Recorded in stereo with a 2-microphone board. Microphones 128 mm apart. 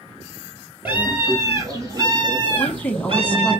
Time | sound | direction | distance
0.8 | a scream | 15° right (ahead or behind) | 3.5 m
2.6 | a woman speaking | 15° left (ahead or behind) | 1.0 m